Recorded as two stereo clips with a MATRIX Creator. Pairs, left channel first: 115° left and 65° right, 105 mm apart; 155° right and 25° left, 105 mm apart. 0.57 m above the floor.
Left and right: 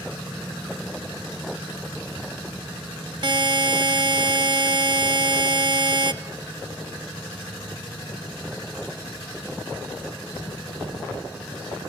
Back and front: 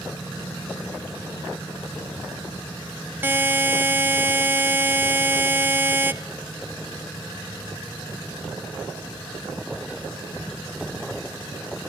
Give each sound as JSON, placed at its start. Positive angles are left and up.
{"t": 3.2, "sound": "a buzzer", "azimuth_deg": -40, "distance_m": 0.6}